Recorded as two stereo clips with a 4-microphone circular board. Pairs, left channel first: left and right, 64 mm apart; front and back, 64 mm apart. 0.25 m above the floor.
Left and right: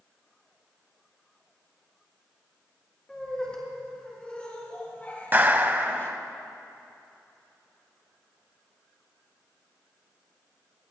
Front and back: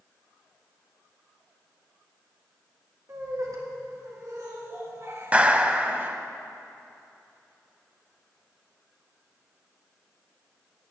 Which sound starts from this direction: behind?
Laughter, at 3.1 s.